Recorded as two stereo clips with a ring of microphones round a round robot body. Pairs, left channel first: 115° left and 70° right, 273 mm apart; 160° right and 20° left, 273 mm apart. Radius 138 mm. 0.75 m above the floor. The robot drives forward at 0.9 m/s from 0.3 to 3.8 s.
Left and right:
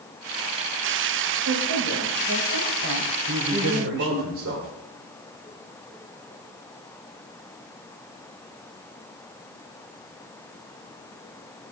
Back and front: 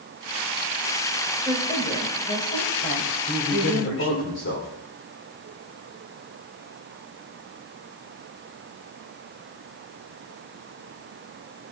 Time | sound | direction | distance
1.4 | a woman speaking | 80° right | 3.5 m
3.3 | a man speaking | 100° right | 2.5 m